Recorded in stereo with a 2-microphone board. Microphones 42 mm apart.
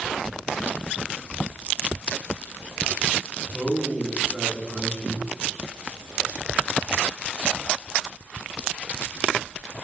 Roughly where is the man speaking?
Centre.